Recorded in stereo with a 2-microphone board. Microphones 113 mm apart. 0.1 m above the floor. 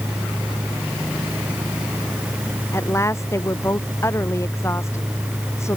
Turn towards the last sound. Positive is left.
turn(degrees=25)  # may be behind; listen again after turning